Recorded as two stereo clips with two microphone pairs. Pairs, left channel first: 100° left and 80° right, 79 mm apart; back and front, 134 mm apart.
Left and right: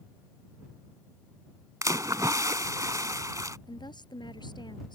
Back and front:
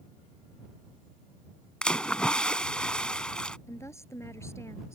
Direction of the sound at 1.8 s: 100° right.